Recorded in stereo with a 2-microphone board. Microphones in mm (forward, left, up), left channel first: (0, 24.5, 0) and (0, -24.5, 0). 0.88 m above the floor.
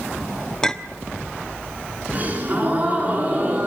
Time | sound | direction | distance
0.6 | a clink | 10° left (ahead or behind) | 1.2 m
2.1 | a gasp | 35° right (ahead or behind) | 8.5 m